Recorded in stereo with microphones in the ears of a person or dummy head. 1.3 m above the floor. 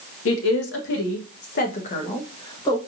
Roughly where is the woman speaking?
Left.